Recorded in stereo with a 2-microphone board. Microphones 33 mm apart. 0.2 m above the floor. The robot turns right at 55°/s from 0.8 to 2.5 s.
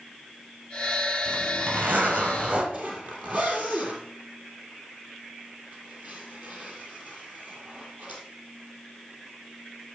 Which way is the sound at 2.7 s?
50° right (ahead or behind).